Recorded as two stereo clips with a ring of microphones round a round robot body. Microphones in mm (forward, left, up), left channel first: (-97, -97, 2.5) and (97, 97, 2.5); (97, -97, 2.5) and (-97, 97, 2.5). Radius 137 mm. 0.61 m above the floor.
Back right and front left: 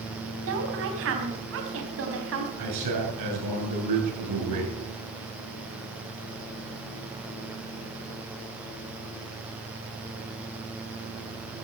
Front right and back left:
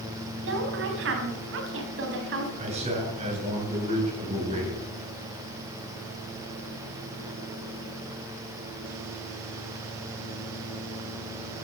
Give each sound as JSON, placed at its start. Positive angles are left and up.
{"t": 0.4, "sound": "a woman speaking", "azimuth_deg": 90, "distance_m": 4.0}
{"t": 2.6, "sound": "a man speaking", "azimuth_deg": 65, "distance_m": 7.5}